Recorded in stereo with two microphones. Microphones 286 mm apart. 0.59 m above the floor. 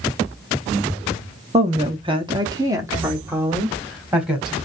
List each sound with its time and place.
1.5 s a woman speaking: 20° right (ahead or behind), 0.8 m; by 4.6 s centre (ahead or behind), 1.8 m